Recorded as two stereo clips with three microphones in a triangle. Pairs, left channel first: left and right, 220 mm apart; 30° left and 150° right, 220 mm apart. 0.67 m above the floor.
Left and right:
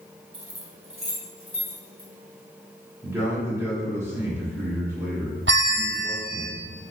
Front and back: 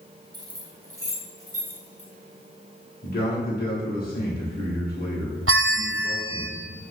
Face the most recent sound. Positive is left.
turn(degrees=-125)